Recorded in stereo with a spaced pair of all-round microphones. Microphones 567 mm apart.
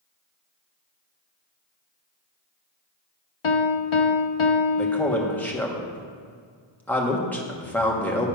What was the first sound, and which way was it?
A piano, 60° left (ahead or behind).